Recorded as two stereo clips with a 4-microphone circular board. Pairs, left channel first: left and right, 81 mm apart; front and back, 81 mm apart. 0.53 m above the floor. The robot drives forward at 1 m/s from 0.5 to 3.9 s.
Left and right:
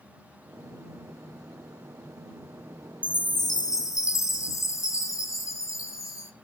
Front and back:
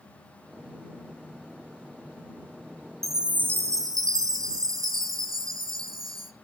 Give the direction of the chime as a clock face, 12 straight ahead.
9 o'clock.